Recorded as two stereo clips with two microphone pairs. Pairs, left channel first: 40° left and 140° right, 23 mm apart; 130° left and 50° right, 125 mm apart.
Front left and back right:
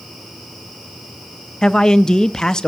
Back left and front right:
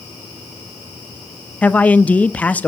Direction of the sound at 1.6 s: 60° left.